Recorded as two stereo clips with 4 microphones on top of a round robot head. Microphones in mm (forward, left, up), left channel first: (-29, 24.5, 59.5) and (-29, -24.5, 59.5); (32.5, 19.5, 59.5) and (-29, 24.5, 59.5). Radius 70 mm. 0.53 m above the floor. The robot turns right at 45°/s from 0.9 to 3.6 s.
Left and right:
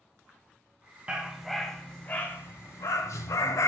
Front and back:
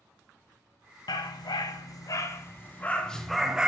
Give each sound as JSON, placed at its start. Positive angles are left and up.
{"t": 1.1, "sound": "a dog barking", "azimuth_deg": -15, "distance_m": 2.0}